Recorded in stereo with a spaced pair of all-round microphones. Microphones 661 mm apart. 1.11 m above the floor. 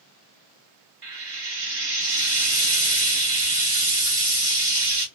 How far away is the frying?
About 0.9 m.